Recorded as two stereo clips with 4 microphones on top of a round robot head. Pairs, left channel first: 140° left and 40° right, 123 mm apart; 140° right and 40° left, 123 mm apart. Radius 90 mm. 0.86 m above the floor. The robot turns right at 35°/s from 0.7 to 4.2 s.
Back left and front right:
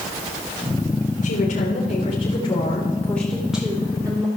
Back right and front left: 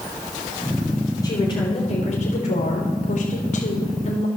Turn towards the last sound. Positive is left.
turn(degrees=-100)